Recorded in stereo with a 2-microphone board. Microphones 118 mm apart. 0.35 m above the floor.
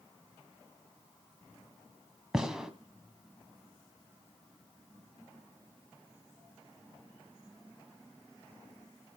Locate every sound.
2.3 s a gunshot: 5° right (ahead or behind), 1.7 m